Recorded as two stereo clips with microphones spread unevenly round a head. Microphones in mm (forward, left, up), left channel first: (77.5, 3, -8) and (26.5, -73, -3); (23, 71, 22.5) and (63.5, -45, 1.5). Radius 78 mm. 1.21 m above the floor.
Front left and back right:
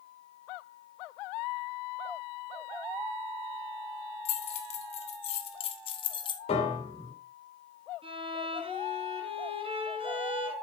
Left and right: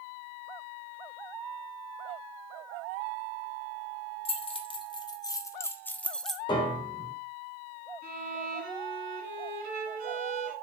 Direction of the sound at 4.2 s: 70° left.